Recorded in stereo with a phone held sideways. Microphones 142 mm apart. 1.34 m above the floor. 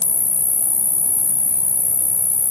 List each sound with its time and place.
0.0 s an insect: 20° right (ahead or behind)